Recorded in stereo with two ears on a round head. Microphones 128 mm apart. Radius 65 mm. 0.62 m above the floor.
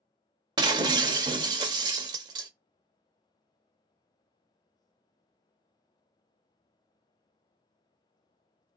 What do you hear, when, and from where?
0.6 s breaking glass: 30° right (ahead or behind), 0.6 m